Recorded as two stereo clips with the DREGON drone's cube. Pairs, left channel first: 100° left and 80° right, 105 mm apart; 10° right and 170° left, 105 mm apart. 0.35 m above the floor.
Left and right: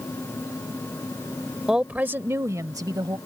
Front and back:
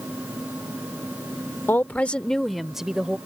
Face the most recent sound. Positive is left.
turn(degrees=-110)